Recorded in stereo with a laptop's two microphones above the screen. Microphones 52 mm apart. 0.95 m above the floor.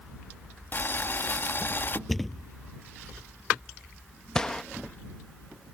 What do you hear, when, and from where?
0.7 s boiling: 40° left (ahead or behind)
2.1 s a thud: centre (ahead or behind)
4.3 s a gunshot: 10° left (ahead or behind)